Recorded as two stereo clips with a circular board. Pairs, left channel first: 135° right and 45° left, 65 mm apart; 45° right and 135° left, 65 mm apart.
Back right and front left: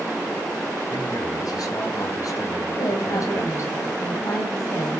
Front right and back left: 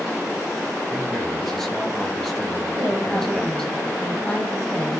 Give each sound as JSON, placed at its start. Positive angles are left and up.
{"t": 0.9, "sound": "a man speaking", "azimuth_deg": -135, "distance_m": 4.5}
{"t": 2.8, "sound": "a woman speaking", "azimuth_deg": -125, "distance_m": 3.5}